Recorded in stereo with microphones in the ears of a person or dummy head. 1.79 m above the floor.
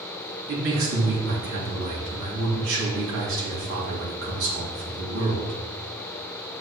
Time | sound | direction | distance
0.5 | a man speaking | 70° right (ahead or behind) | 2 m